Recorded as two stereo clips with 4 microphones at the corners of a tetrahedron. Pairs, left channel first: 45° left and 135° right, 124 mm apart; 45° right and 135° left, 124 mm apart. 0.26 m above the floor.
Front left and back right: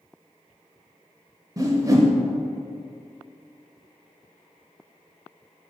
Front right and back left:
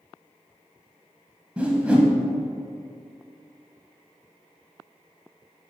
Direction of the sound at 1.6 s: 155° right.